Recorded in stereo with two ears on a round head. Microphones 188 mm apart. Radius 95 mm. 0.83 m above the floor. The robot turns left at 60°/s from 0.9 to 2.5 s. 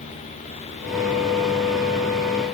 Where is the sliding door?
No sliding door in this recording.